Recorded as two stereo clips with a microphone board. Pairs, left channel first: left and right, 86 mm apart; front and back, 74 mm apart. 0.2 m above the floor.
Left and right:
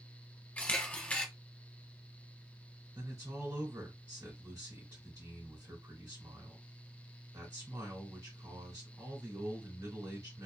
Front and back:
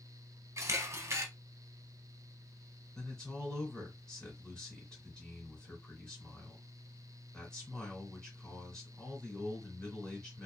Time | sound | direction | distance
0.6 | a camera shutter | 155° left | 0.6 m
3.0 | a man speaking | 70° right | 1.3 m